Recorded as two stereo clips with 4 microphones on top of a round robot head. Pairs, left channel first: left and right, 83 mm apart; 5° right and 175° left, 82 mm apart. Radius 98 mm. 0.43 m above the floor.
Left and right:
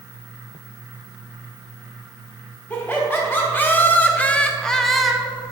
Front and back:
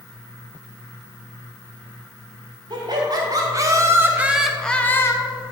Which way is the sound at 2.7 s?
155° left.